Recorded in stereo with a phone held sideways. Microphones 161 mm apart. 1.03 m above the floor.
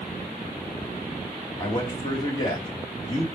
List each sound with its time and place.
1.6 s a man speaking: 25° left (ahead or behind), 2.0 m